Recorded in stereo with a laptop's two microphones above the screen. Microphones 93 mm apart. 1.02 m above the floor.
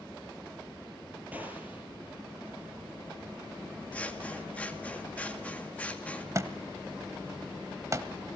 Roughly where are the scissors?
Centre.